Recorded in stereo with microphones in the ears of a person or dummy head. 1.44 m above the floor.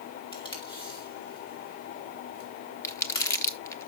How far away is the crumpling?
About 0.9 m.